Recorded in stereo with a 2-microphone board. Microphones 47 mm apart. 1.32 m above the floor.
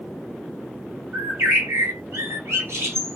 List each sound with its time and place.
1.1 s a bird: 70° right (ahead or behind), 1.1 m